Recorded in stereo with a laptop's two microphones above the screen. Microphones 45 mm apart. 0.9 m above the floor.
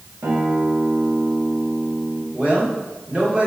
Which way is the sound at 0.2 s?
75° right (ahead or behind).